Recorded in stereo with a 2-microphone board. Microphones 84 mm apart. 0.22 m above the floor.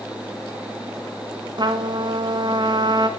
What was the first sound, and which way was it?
A trumpet, 60° right (ahead or behind).